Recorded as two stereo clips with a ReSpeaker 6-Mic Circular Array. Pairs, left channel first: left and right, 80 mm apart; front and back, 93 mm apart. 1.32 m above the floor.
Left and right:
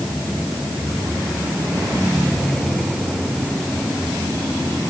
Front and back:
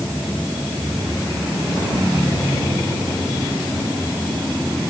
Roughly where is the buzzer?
I don't hear a buzzer.